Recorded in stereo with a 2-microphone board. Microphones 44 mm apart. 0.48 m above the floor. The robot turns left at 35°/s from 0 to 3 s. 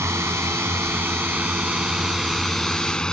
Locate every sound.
0.0 s a drone: 70° right (ahead or behind); by 3.1 s 20° left (ahead or behind)